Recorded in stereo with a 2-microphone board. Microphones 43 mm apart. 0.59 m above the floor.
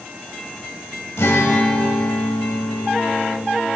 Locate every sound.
1.2 s a guitar: 85° left, 1.0 m